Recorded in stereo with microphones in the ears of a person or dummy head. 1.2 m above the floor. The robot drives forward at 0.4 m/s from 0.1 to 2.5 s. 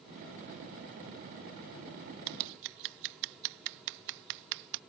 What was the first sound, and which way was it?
Scissors, 55° right (ahead or behind).